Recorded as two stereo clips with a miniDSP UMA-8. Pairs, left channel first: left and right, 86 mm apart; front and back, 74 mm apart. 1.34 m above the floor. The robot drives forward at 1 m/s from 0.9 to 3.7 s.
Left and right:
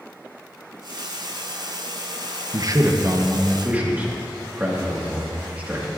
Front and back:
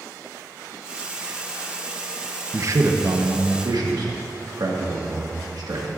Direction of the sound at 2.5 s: 125° right.